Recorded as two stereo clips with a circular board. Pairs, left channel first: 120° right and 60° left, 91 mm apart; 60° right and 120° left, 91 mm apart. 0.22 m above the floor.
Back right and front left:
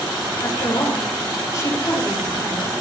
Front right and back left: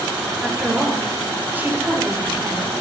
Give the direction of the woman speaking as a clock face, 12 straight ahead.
5 o'clock.